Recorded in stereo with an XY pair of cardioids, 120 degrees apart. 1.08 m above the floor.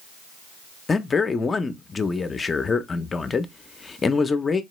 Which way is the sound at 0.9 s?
25° left.